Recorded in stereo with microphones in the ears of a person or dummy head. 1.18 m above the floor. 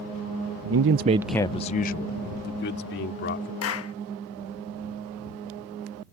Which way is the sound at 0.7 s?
75° right (ahead or behind).